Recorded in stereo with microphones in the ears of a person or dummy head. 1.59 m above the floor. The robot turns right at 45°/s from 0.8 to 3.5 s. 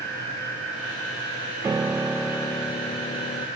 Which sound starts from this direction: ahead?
A piano, at 1.6 s.